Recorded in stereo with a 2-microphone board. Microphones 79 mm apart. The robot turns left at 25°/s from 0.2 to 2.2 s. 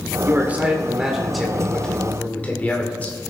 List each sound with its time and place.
0.2 s a man speaking: 150° right, 2 m; by 3.2 s 160° left, 2 m